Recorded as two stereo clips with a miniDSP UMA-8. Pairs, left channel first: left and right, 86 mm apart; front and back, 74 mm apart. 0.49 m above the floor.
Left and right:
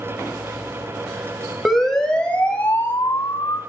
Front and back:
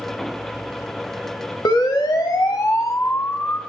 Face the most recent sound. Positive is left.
turn(degrees=40)